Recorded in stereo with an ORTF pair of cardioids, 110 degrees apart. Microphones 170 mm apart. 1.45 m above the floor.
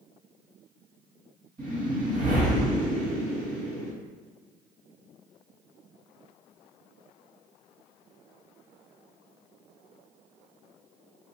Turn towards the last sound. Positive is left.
turn(degrees=-50)